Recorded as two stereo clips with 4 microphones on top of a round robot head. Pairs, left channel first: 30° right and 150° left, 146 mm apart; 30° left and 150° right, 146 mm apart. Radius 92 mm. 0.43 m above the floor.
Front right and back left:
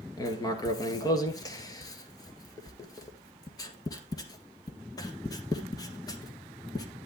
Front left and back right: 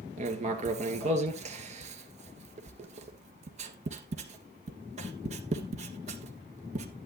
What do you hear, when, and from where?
0.2 s writing: 100° right, 1.7 m